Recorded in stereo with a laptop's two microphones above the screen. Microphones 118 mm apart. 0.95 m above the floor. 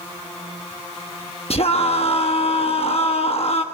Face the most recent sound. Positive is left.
turn(degrees=60)  # may be behind; listen again after turning